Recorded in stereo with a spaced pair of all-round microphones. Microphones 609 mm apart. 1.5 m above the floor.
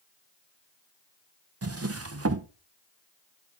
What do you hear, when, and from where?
1.6 s a drawer: 25° right (ahead or behind), 0.6 m